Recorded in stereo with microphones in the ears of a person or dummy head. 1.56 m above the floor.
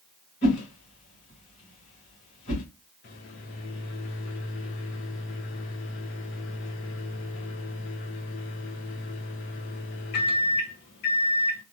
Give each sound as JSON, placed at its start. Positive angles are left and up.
{"t": 0.4, "sound": "a whoosh", "side_deg": 40, "distance_m": 1.8}
{"t": 3.0, "sound": "a microwave", "side_deg": 40, "distance_m": 0.7}